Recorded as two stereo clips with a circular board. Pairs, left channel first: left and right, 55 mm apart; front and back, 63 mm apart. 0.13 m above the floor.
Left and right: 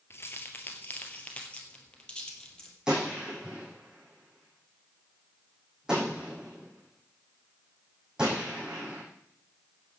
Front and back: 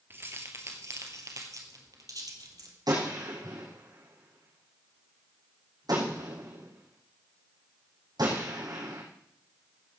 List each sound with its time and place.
0.1 s keys jangling: 130° left, 1.9 m; by 2.8 s 165° left, 3 m
2.9 s a gunshot: 170° right, 5.5 m